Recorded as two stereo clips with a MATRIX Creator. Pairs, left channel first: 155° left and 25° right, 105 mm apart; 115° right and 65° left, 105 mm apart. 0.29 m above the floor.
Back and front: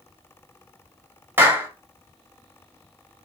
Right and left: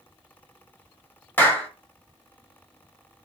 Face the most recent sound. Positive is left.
turn(degrees=-65)